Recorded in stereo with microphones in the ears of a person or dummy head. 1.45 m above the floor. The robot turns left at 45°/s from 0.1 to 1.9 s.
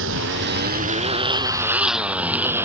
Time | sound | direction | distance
0.0 | a motorcycle | 70° right (ahead or behind) | ?